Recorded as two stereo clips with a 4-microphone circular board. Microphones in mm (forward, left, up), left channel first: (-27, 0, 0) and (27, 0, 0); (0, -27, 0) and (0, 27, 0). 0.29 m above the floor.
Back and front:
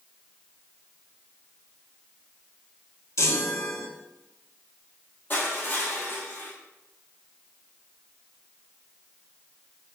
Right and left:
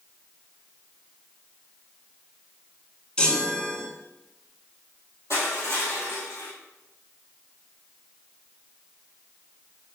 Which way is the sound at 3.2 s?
160° right.